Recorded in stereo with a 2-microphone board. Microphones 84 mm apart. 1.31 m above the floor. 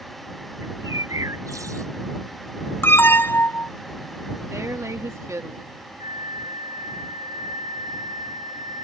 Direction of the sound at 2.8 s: 25° left (ahead or behind).